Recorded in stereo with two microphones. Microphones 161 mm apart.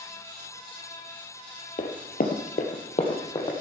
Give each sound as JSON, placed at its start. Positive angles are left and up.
{"t": 1.8, "sound": "running footsteps", "side_deg": 55, "distance_m": 1.6}